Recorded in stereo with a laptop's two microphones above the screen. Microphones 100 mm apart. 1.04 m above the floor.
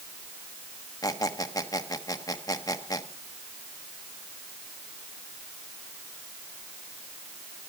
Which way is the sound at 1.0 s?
35° left (ahead or behind).